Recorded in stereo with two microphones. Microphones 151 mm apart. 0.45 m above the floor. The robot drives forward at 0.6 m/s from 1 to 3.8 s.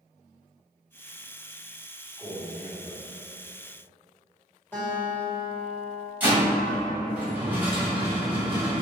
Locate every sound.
2.2 s a man speaking: 20° left (ahead or behind), 1.4 m; by 3.0 s 15° left (ahead or behind), 1.7 m
4.7 s a guitar: 15° left (ahead or behind), 1.6 m
6.2 s a rattle: 15° right (ahead or behind), 1.8 m